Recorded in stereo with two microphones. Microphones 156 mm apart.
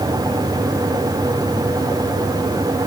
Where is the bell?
No bell in this recording.